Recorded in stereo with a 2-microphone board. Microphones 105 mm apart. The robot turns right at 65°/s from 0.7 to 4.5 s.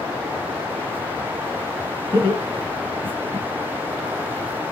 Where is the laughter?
40° right (ahead or behind), 1.9 m; by 3.5 s 25° right (ahead or behind), 1.9 m.